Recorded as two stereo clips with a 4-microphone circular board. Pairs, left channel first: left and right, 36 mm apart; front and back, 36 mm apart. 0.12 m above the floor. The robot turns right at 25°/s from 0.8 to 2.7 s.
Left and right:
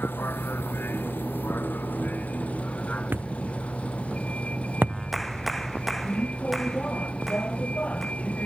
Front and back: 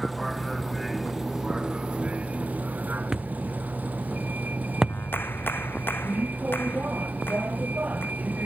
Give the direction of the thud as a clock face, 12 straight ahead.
4 o'clock.